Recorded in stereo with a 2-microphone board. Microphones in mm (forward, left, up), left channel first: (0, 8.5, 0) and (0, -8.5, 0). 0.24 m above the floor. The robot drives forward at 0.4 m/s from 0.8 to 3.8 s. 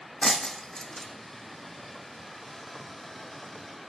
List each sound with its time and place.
0.2 s breaking glass: 30° left (ahead or behind), 0.8 m